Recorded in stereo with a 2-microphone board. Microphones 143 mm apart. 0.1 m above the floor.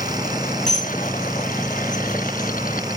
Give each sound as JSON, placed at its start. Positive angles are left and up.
{"t": 0.7, "sound": "dishes clattering", "side_deg": 60, "distance_m": 4.0}